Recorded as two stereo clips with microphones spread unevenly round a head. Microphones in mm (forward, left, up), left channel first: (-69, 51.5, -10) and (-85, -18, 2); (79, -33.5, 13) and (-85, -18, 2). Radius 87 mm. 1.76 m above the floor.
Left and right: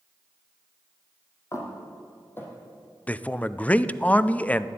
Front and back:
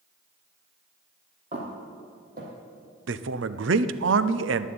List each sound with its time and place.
1.5 s footsteps: 125° left, 3 m; by 2.5 s 140° left, 3.5 m
3.1 s a man speaking: 150° left, 0.6 m